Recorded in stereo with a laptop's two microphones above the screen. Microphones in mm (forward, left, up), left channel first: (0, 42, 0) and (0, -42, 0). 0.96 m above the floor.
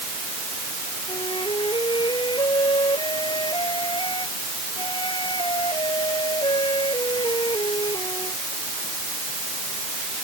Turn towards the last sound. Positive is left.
turn(degrees=75)  # may be behind; listen again after turning